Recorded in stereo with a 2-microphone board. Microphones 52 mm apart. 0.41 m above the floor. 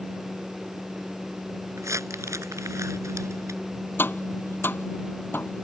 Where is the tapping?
45° left (ahead or behind).